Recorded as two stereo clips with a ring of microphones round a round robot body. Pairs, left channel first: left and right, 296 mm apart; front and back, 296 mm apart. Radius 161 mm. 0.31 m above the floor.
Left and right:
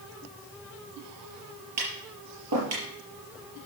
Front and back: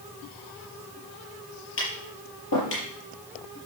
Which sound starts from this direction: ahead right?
Tapping, at 1.8 s.